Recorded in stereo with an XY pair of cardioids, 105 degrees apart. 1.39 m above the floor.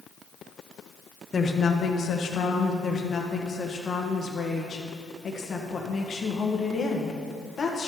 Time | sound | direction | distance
1.3 | a woman speaking | 30° left | 0.9 m
2.8 | a woman speaking | 40° left | 1.4 m